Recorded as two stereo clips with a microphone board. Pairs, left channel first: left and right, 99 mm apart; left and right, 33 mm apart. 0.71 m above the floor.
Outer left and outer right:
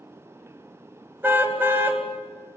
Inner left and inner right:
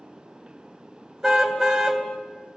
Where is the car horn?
20° right (ahead or behind), 2.5 m.